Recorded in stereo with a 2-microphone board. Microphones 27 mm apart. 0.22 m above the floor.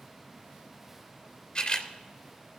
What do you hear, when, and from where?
1.6 s a camera shutter: 45° left (ahead or behind), 2 m